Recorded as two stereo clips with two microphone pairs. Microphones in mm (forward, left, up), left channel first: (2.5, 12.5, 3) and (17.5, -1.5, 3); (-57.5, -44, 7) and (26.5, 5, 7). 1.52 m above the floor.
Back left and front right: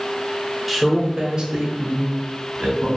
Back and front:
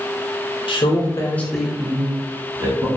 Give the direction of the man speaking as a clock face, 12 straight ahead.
4 o'clock.